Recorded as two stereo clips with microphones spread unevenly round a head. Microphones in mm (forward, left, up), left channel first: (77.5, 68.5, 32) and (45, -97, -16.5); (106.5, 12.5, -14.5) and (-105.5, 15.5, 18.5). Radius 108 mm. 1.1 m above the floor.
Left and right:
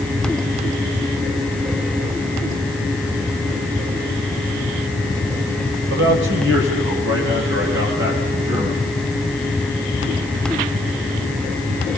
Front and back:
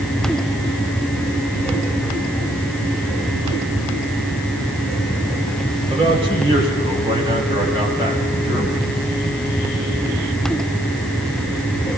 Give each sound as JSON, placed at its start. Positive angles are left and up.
{"t": 5.9, "sound": "a man speaking", "azimuth_deg": -110, "distance_m": 5.0}